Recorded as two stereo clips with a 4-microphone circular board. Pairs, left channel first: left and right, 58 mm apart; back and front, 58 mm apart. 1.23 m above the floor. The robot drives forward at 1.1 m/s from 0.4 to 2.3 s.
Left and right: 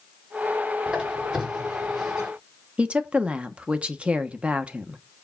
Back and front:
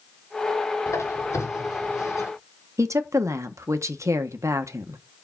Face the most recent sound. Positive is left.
turn(degrees=-20)